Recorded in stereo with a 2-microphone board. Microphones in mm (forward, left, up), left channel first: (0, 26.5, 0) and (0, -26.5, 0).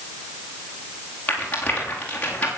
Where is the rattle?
25° left (ahead or behind), 6.5 m.